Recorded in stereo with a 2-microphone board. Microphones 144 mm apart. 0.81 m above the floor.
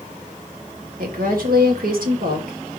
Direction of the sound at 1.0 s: 80° right.